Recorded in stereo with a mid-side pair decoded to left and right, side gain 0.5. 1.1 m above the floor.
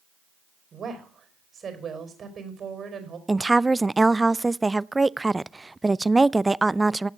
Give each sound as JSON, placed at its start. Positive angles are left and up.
{"t": 0.7, "sound": "a woman speaking", "azimuth_deg": -45, "distance_m": 5.0}
{"t": 3.3, "sound": "a woman speaking", "azimuth_deg": -15, "distance_m": 0.5}